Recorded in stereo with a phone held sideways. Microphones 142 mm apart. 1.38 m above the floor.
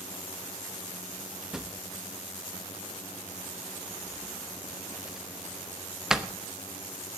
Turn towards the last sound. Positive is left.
turn(degrees=-5)  # may be behind; listen again after turning